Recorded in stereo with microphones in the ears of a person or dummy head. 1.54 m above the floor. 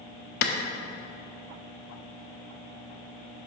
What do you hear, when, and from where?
0.4 s a clap: 60° left (ahead or behind), 0.7 m